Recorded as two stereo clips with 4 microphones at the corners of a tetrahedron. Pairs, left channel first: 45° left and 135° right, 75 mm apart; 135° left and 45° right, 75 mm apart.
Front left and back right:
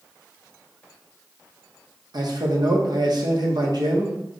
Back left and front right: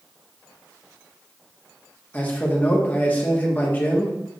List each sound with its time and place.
2.1 s a man speaking: 160° right, 1.0 m